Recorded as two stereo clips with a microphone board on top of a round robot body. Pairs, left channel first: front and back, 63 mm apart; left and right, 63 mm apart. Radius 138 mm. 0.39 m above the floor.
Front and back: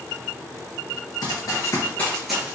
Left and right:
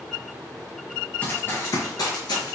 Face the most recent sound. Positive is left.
turn(degrees=110)